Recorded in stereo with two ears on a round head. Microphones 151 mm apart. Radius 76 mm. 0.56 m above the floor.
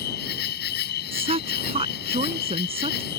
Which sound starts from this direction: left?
An insect, at 0.0 s.